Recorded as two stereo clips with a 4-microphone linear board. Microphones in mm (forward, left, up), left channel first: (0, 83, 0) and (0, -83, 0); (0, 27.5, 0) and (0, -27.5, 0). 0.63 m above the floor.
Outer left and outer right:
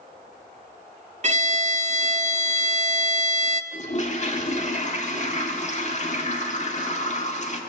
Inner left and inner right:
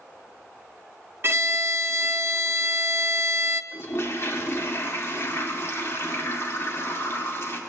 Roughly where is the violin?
Right.